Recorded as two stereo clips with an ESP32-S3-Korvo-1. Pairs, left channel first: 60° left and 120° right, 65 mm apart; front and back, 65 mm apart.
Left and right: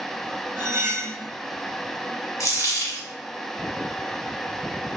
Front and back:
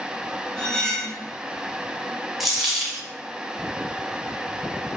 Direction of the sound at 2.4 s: 90° left.